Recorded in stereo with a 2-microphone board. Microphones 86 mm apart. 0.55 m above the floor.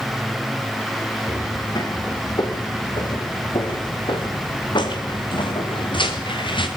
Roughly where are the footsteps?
Left.